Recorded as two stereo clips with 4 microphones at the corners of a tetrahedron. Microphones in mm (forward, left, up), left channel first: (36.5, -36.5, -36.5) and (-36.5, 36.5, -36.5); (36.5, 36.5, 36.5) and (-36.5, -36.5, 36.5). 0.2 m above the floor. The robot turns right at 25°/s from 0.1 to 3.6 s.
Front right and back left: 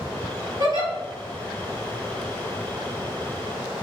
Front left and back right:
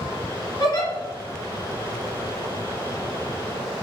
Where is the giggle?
95° left, 1.3 m; by 0.9 s 100° left, 1.3 m.